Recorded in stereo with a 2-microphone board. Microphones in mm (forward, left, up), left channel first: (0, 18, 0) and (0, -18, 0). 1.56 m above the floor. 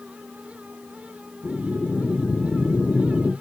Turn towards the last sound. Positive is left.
turn(degrees=35)  # may be behind; listen again after turning